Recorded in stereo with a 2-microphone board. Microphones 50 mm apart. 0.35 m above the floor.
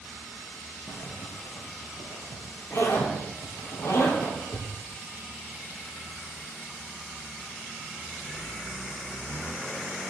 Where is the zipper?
85° left, 3.5 m.